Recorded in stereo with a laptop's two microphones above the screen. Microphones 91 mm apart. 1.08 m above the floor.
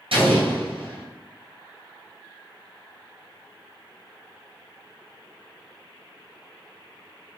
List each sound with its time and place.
0.1 s an explosion: 80° right, 1.5 m